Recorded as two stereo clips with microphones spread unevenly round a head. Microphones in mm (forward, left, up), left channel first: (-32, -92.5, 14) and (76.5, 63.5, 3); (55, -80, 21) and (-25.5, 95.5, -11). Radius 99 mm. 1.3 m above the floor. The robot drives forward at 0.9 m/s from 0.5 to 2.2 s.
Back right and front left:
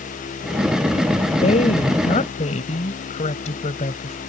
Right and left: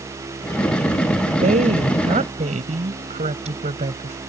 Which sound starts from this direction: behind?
A woman speaking, at 1.4 s.